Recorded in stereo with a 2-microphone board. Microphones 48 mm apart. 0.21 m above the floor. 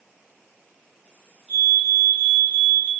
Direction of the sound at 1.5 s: 40° right (ahead or behind).